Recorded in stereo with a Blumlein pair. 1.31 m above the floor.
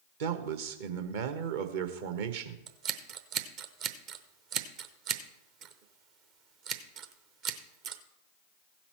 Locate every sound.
0.2 s a man speaking: 55° right, 1.1 m
2.7 s scissors: 40° right, 0.8 m